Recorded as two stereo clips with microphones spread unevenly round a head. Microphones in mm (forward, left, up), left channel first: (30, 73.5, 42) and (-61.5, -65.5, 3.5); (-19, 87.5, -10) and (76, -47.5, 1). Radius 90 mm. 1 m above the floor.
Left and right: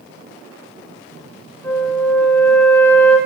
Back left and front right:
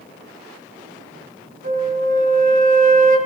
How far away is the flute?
About 2.5 m.